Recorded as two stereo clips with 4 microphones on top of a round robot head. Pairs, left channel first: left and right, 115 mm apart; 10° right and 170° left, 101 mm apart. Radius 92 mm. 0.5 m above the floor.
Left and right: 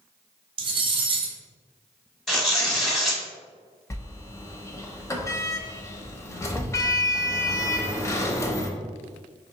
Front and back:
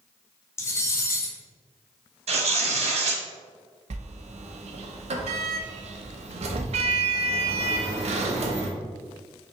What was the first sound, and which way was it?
Cutlery clinking, 65° right.